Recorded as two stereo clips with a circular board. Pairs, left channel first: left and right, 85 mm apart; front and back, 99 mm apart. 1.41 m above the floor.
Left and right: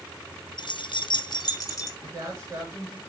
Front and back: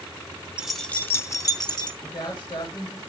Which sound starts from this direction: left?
Keys jangling, at 0.6 s.